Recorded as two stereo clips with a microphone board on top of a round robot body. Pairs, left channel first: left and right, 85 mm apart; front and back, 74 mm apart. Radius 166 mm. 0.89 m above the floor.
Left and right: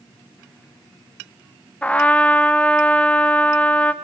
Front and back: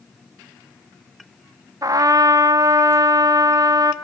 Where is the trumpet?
160° left, 0.8 m.